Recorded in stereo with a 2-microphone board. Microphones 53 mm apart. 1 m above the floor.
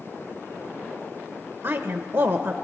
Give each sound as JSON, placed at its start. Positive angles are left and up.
{"t": 1.6, "sound": "a woman speaking", "side_deg": -55, "distance_m": 0.7}